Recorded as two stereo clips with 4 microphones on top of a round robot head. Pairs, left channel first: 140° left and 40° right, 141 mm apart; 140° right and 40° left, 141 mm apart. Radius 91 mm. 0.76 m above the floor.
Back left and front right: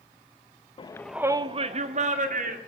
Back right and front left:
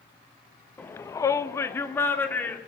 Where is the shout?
150° left, 0.7 m; by 2.6 s 65° right, 2 m.